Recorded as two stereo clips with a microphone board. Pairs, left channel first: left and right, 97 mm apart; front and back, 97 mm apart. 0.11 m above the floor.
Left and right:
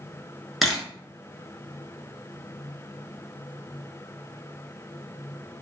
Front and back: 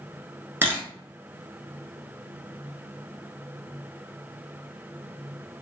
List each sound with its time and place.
0.6 s a camera shutter: straight behind, 0.9 m